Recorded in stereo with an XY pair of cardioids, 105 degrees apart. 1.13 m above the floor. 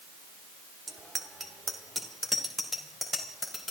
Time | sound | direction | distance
0.9 | a bicycle bell | 30° right | 2 m